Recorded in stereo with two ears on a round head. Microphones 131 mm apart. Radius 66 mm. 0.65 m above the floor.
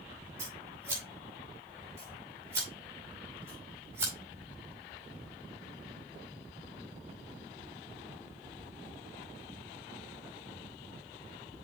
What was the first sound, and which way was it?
Scissors, 20° right (ahead or behind).